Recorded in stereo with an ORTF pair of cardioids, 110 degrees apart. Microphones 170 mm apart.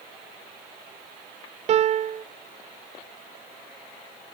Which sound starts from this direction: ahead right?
A piano, at 1.7 s.